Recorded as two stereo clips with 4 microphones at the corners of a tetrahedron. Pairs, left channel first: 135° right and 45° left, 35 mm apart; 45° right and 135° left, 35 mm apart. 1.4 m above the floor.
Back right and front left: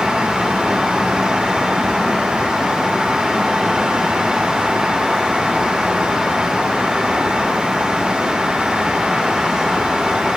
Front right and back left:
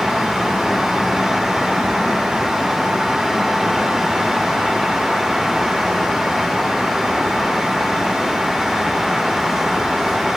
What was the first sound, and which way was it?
Only background noise.